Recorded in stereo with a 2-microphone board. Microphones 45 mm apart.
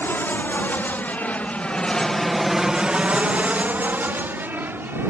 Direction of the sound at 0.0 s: 50° left (ahead or behind).